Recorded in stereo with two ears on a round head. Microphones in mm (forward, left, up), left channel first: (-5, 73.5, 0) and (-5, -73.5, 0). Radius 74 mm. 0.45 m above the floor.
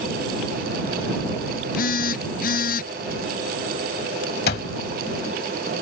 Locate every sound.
1.8 s a phone buzzing: 60° left (ahead or behind)
4.5 s an alarm clock: 65° left (ahead or behind)